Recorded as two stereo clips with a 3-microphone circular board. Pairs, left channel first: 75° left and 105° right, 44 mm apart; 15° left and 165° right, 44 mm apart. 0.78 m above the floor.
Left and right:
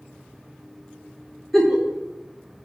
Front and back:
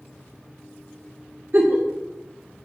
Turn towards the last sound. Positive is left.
turn(degrees=160)